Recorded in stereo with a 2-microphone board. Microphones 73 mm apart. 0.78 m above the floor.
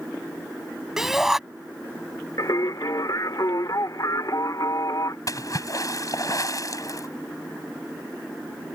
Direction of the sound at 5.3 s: 55° left (ahead or behind).